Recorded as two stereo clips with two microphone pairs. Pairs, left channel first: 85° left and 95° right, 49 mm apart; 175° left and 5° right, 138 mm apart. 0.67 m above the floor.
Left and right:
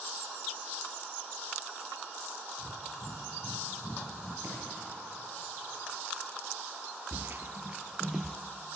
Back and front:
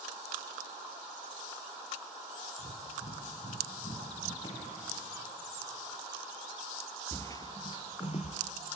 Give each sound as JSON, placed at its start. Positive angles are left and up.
{"t": 2.6, "sound": "breathing", "azimuth_deg": 135, "distance_m": 4.0}
{"t": 4.4, "sound": "a drawer", "azimuth_deg": -130, "distance_m": 8.5}
{"t": 7.1, "sound": "footsteps", "azimuth_deg": -115, "distance_m": 1.0}